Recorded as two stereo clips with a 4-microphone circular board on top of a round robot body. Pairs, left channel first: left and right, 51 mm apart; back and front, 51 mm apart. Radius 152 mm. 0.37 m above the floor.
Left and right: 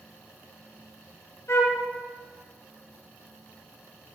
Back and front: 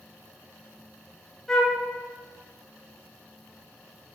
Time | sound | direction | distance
1.5 | a flute | 95° left | 0.7 m